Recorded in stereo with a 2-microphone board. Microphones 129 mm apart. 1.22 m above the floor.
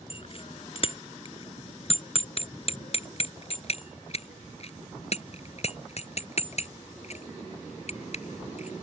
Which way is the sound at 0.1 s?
45° left (ahead or behind).